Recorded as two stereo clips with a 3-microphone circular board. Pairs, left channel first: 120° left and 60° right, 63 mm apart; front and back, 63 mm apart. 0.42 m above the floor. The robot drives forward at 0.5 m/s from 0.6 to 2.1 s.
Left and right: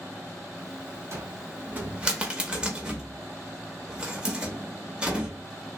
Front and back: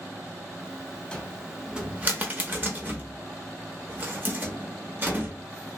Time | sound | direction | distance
1.1 | a cupboard door | 70° right | 0.6 m